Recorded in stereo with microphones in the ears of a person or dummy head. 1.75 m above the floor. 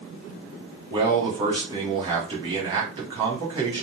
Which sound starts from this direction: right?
A man speaking, at 0.9 s.